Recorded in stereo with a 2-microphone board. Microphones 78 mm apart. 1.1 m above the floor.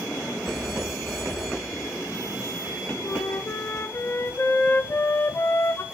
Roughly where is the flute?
Left.